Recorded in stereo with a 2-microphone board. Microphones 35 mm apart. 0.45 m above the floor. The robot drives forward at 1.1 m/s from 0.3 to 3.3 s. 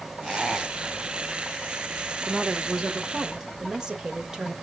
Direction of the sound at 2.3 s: 25° right (ahead or behind).